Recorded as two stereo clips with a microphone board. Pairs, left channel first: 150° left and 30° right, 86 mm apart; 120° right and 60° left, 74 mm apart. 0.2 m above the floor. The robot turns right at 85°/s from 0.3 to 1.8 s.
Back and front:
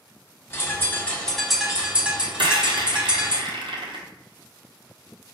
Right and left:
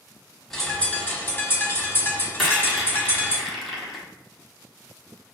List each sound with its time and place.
0.5 s a bird: 155° left, 1.1 m; by 3.4 s 95° right, 1.1 m
2.4 s a rattle: 30° right, 1.2 m